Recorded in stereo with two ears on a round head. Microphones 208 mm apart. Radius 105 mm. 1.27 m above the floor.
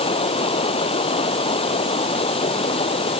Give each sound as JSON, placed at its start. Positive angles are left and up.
{"t": 0.0, "sound": "running water", "side_deg": 25}